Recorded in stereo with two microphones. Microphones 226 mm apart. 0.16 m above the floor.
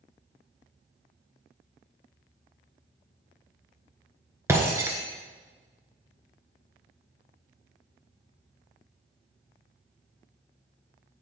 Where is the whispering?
No whispering in this recording.